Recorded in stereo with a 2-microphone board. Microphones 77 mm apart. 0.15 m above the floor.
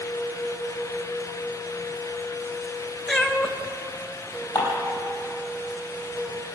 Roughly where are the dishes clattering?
Left.